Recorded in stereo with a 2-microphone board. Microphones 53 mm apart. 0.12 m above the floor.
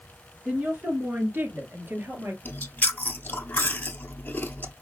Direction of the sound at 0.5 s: 35° right (ahead or behind).